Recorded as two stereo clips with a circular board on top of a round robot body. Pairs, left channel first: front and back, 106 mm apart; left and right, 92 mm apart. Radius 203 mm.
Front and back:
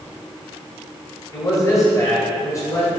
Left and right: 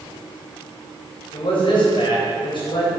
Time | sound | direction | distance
1.3 | a man speaking | 60° left | 3.5 m